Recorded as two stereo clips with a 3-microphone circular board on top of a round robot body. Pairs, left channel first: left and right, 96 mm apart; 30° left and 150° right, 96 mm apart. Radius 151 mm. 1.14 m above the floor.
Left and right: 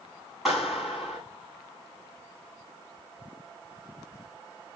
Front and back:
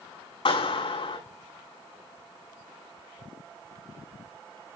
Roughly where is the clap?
Ahead.